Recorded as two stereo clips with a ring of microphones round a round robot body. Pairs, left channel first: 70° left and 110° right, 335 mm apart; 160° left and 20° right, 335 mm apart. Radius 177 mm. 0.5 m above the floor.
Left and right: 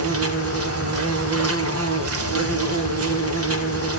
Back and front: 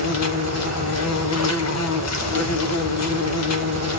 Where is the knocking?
No knocking in this recording.